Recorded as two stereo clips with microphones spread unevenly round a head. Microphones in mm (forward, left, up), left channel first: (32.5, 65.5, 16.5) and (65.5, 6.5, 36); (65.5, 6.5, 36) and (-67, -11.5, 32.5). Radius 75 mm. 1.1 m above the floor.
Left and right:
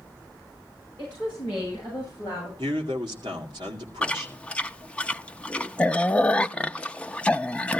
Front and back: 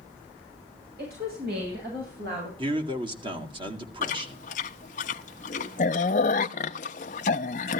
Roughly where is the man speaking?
Behind right.